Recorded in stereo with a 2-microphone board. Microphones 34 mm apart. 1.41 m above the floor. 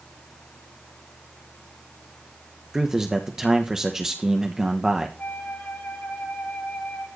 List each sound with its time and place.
2.7 s a man speaking: 15° right (ahead or behind), 1.2 m
5.2 s a flute: 65° left (ahead or behind), 5 m